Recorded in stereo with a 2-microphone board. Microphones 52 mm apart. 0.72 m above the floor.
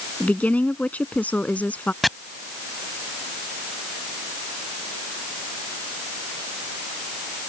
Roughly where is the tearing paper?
I don't hear tearing paper.